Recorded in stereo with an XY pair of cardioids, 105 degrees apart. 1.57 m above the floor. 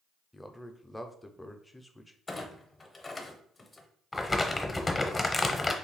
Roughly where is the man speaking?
Ahead.